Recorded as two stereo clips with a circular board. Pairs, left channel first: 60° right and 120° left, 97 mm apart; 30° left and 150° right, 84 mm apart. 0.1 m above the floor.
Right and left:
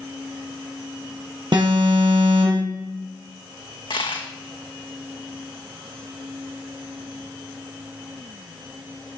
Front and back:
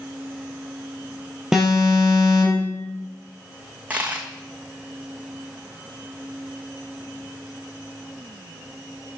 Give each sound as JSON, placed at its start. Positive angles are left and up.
{"t": 1.5, "sound": "an alarm", "azimuth_deg": 130, "distance_m": 3.5}
{"t": 3.9, "sound": "a dropped coin", "azimuth_deg": -75, "distance_m": 1.5}